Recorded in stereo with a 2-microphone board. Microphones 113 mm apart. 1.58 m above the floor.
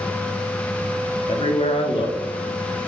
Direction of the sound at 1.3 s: 55° left (ahead or behind).